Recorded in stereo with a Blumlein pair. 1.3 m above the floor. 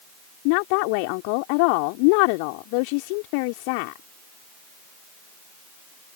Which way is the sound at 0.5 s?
45° left.